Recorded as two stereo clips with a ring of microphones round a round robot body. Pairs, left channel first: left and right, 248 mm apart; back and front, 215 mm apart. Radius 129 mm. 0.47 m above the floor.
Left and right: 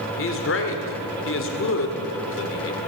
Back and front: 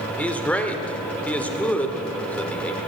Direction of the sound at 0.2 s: 100° left.